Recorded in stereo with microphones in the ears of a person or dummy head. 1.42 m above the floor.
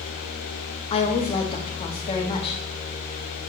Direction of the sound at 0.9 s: 30° left (ahead or behind).